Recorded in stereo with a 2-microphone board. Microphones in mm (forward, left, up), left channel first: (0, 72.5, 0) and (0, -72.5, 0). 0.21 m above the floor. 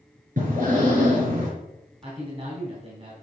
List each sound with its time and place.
0.4 s breathing: 70° right (ahead or behind), 4 m
2.0 s a man speaking: 45° right (ahead or behind), 2 m